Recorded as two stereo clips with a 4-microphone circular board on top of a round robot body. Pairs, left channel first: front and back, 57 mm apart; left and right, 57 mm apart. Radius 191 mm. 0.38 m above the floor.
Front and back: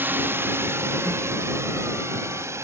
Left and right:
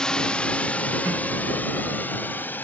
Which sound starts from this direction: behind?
A drone, at 0.0 s.